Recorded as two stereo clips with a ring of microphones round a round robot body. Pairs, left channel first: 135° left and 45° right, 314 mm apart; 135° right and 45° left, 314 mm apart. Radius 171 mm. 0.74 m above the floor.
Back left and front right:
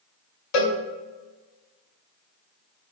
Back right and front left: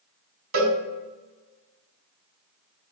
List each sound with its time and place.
0.5 s a cowbell: 95° left, 1.2 m